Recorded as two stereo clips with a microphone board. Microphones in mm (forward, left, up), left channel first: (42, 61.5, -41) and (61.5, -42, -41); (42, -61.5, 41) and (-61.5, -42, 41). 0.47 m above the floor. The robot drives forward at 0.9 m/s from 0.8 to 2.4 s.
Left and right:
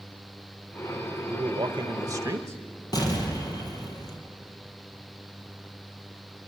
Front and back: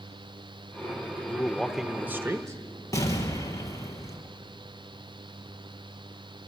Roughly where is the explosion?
Ahead left.